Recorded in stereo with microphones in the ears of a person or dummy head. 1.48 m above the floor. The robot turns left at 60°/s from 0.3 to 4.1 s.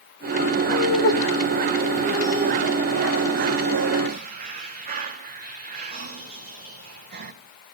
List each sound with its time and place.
0.7 s laughter: 75° left (ahead or behind), 1.1 m; by 7.3 s 50° right (ahead or behind), 1.1 m